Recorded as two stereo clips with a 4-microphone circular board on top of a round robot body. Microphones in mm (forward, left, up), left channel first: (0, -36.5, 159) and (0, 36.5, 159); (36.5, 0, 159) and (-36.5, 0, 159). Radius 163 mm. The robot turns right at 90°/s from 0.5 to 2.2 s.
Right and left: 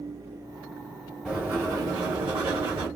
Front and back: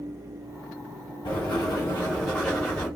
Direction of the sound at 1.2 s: Straight ahead.